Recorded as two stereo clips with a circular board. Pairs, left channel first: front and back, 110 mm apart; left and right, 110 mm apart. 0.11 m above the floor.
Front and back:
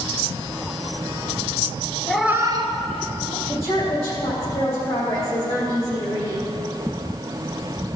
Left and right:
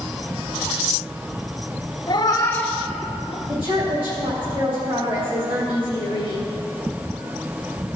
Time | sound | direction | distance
2.1 | a cat meowing | 80° left | 0.7 m
3.5 | a woman speaking | 60° right | 3.5 m